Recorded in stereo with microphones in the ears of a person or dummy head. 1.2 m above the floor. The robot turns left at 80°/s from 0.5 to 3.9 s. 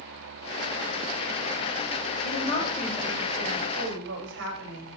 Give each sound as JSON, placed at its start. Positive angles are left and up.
{"t": 2.2, "sound": "a woman speaking", "azimuth_deg": 65, "distance_m": 7.0}